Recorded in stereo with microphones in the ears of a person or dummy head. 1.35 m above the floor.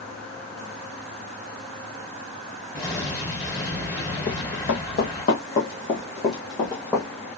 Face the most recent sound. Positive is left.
turn(degrees=15)  # may be behind; listen again after turning